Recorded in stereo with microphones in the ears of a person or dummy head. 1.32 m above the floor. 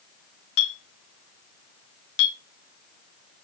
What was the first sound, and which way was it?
A clink, 70° left (ahead or behind).